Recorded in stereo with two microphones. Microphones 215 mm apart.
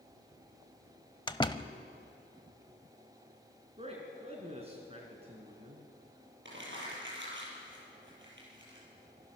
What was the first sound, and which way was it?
A door slam, 20° left (ahead or behind).